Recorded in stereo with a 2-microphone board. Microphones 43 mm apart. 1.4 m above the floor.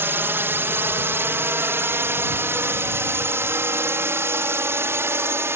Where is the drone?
60° right (ahead or behind); by 5.6 s 75° right (ahead or behind).